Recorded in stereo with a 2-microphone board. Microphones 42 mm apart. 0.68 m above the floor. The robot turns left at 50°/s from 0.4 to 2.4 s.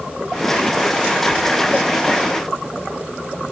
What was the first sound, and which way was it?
A squeak, 30° left (ahead or behind).